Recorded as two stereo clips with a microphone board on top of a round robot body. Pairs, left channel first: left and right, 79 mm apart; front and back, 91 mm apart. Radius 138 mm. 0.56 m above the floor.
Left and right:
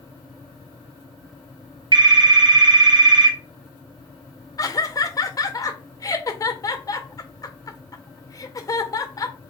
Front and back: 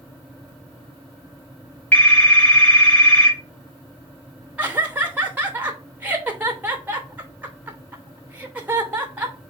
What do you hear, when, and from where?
1.9 s a phone ringing: 75° right, 1.6 m
4.6 s laughter: 115° left, 1.0 m